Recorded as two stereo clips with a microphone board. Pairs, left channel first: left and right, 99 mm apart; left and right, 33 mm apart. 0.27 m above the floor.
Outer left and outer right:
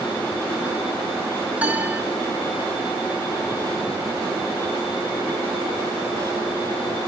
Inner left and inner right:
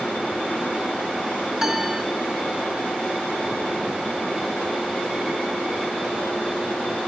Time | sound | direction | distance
1.6 | a piano | 15° right (ahead or behind) | 0.7 m